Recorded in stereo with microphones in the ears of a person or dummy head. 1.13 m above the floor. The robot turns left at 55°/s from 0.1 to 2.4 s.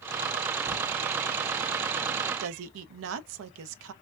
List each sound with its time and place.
0.7 s crumpling: 40° right (ahead or behind), 1.6 m; by 0.8 s 35° right (ahead or behind), 1.6 m
2.4 s a woman speaking: 85° right, 0.6 m